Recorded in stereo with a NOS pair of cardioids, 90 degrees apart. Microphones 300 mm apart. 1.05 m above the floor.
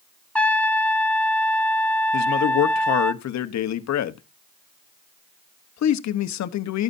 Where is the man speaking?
65° left, 1.2 m.